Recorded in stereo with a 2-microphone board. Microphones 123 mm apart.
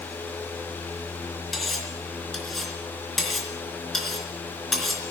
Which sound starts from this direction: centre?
Cutlery clinking, at 1.5 s.